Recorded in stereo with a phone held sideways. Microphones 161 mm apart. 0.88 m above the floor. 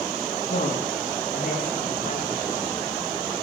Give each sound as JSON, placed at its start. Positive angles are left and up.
{"t": 0.5, "sound": "a woman speaking", "side_deg": 85, "distance_m": 6.0}